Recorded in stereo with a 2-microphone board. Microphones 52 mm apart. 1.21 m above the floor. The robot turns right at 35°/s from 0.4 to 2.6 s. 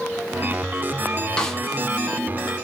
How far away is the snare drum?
About 1.0 m.